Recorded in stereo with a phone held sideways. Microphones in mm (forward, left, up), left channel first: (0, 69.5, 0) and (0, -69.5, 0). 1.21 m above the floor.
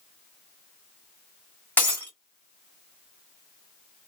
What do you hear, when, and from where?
1.8 s breaking glass: 15° left (ahead or behind), 2.5 m